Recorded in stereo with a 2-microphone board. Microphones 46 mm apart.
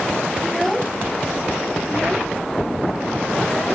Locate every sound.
0.4 s a child speaking: centre (ahead or behind); by 3.8 s 15° left (ahead or behind)